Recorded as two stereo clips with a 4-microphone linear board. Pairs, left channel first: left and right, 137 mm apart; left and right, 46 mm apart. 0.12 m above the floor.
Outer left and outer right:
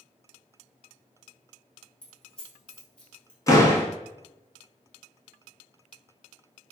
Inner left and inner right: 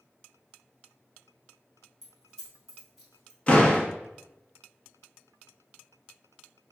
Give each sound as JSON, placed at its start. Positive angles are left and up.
{"t": 2.0, "sound": "keys jangling", "side_deg": 5, "distance_m": 1.7}
{"t": 3.5, "sound": "a door slam", "side_deg": 25, "distance_m": 1.1}